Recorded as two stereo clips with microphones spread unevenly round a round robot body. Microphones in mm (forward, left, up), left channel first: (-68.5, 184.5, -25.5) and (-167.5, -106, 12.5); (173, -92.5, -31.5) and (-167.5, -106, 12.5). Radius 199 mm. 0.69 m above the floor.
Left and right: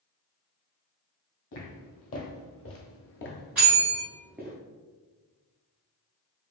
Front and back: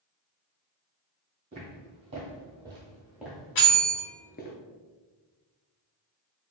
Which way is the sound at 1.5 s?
115° left.